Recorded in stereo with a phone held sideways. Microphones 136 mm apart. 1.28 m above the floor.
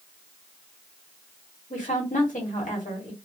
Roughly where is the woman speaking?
Left.